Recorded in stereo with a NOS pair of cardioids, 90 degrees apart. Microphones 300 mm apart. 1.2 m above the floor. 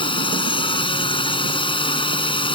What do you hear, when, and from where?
0.0 s a drone: 15° left